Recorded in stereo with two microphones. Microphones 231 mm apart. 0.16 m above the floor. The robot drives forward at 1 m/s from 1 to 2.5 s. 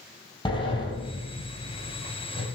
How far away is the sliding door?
About 5.5 m.